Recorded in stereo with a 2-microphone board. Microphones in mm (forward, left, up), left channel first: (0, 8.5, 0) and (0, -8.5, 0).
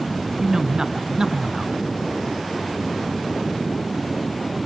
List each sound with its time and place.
0.4 s a man speaking: 35° right (ahead or behind), 1.9 m